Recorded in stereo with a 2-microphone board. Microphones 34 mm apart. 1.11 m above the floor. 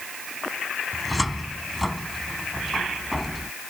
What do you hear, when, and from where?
0.9 s a cupboard door: centre (ahead or behind)